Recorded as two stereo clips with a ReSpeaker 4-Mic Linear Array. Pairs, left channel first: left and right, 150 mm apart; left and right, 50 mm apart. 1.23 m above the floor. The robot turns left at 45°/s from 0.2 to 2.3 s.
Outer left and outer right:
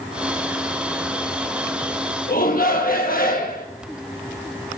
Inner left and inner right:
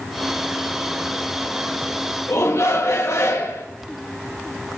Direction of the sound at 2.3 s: 70° left (ahead or behind).